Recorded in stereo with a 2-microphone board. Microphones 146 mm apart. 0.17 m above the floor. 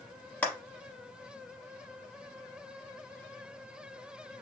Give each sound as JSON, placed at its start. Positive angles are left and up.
{"t": 0.4, "sound": "a clap", "side_deg": 10, "distance_m": 0.8}